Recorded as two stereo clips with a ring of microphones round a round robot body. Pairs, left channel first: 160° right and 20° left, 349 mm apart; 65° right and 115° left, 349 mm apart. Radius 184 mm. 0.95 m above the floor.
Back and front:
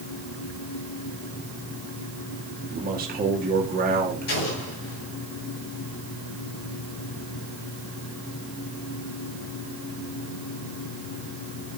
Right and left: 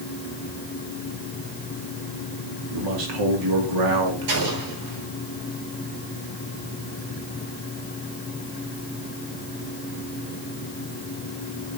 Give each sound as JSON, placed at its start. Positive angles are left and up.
{"t": 2.7, "sound": "a man speaking", "azimuth_deg": 90, "distance_m": 2.5}
{"t": 4.3, "sound": "an explosion", "azimuth_deg": 145, "distance_m": 6.0}